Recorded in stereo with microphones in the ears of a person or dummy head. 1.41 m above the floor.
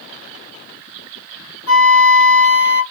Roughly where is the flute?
Left.